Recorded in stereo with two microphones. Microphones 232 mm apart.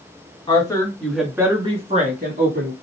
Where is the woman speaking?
20° left (ahead or behind), 1.6 m; by 2.7 s 45° right (ahead or behind), 1.9 m.